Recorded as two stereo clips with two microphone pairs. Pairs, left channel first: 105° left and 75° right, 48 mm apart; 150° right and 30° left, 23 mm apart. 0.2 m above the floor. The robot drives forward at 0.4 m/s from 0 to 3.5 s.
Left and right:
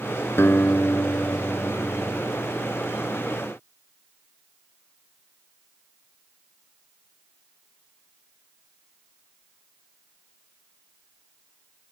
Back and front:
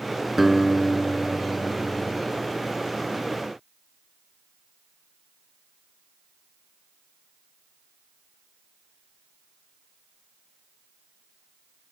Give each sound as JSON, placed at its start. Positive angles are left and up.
{"t": 0.4, "sound": "a guitar", "azimuth_deg": 110}